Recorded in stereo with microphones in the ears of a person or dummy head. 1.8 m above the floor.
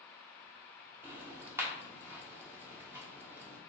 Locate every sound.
1.0 s ticking: 10° right (ahead or behind), 1.0 m